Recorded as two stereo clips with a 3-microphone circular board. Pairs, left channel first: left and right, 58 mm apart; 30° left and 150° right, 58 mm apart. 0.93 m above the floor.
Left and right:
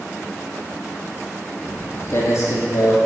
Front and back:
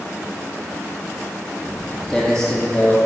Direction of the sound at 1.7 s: 130° left.